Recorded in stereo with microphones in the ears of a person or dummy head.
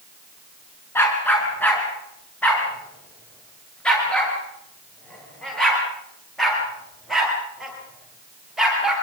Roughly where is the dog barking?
Centre.